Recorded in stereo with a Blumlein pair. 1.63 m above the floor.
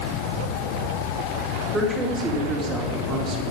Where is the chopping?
No chopping in this recording.